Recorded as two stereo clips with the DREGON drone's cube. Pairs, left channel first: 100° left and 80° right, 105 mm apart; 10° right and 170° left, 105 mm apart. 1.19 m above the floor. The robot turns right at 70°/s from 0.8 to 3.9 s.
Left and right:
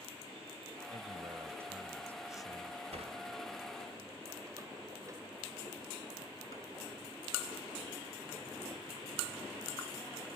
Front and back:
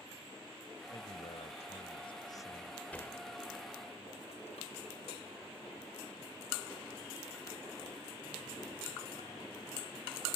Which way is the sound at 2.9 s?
90° right.